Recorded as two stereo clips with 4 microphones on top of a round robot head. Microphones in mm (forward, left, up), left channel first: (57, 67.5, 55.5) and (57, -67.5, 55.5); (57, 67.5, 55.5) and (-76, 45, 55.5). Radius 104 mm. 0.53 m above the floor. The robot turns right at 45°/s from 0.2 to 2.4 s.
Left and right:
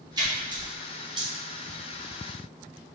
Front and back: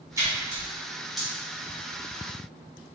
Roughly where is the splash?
Behind right.